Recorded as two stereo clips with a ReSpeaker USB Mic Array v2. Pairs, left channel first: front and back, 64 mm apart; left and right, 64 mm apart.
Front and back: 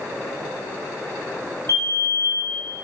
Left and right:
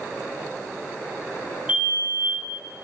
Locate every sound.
1.7 s a fire alarm: 155° right, 6.5 m